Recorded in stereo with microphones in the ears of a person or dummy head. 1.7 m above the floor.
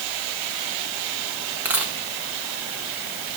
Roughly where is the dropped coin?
Centre.